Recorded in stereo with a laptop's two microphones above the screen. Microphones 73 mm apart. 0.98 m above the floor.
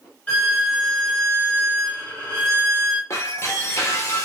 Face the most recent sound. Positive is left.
turn(degrees=40)  # may be behind; listen again after turning